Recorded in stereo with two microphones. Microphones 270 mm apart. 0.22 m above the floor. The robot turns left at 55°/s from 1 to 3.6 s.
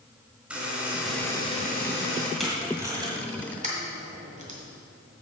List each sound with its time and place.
0.5 s a buzzer: 175° right, 2.5 m; by 2.3 s 115° left, 2.5 m
2.4 s tape being pulled: centre (ahead or behind), 1.7 m; by 4.6 s 25° right (ahead or behind), 1.7 m